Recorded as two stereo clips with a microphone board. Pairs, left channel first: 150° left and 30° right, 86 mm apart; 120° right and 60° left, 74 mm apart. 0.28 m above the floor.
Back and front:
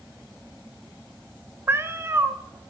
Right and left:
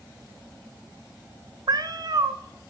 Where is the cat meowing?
30° left, 1.0 m.